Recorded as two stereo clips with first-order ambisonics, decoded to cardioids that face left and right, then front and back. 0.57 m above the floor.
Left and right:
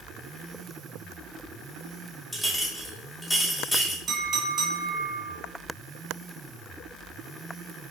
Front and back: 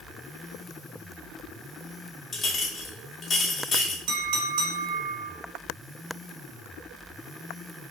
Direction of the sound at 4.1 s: 155° right.